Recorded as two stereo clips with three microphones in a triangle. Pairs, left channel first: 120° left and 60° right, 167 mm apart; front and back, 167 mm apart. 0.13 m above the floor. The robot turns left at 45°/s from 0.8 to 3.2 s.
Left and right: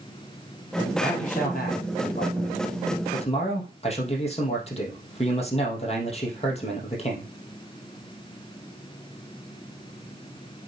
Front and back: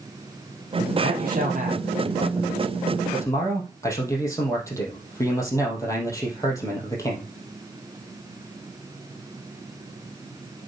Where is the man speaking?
170° left, 3.5 m; by 7.3 s 70° left, 3.5 m.